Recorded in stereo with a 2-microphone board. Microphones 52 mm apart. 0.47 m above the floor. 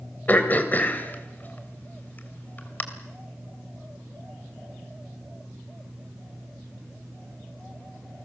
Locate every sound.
0.3 s throat clearing: 35° left (ahead or behind), 2.5 m